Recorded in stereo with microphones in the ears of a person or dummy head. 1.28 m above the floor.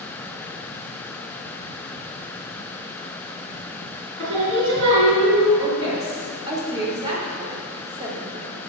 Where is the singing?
70° right (ahead or behind), 4 m.